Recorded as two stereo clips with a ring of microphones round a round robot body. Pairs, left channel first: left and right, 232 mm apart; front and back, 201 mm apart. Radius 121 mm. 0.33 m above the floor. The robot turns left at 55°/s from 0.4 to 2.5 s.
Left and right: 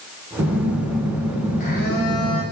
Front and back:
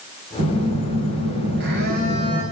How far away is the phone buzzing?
About 5.5 m.